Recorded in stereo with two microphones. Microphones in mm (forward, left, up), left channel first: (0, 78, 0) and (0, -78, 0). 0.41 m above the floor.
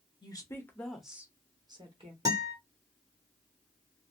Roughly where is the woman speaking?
Left.